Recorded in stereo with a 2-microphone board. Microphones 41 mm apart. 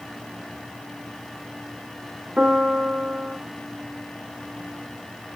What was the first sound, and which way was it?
A piano, 30° right (ahead or behind).